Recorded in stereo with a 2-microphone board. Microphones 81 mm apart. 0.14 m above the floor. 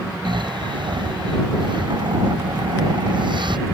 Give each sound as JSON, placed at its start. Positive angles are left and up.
{"t": 0.2, "sound": "snoring", "side_deg": -70}